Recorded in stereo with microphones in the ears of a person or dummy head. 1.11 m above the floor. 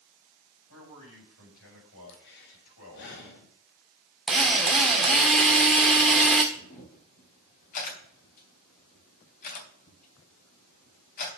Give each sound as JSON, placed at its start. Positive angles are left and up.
{"t": 0.7, "sound": "a man speaking", "side_deg": 85, "distance_m": 5.5}
{"t": 2.1, "sound": "breathing", "side_deg": 65, "distance_m": 2.0}
{"t": 4.3, "sound": "a drill", "side_deg": 0, "distance_m": 1.7}
{"t": 6.5, "sound": "a camera shutter", "side_deg": 45, "distance_m": 3.5}